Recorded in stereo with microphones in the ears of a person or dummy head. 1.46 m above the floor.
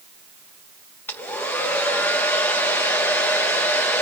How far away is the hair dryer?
About 1.0 m.